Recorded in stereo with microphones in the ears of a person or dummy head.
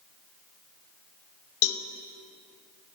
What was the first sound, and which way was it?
A cowbell, 75° left (ahead or behind).